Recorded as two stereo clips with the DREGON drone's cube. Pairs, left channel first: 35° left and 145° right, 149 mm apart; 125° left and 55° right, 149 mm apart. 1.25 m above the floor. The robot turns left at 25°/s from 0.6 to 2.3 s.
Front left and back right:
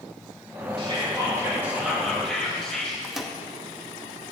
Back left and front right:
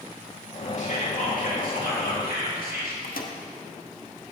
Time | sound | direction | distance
0.8 | whispering | 160° left | 2.5 m
3.0 | a microwave | 125° left | 0.7 m